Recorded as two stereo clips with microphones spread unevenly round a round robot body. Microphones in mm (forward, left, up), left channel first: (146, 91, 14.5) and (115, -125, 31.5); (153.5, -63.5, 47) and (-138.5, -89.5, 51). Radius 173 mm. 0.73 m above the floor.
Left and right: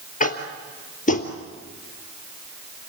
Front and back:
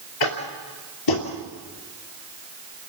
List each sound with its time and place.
0.2 s tapping: 25° left, 3 m